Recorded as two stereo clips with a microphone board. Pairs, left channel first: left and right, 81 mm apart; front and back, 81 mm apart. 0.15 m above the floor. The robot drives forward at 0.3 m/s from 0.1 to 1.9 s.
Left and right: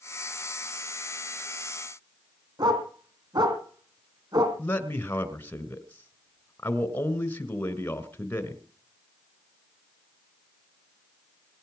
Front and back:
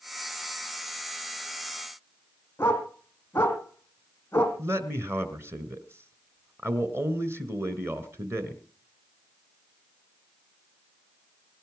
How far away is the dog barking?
About 3 m.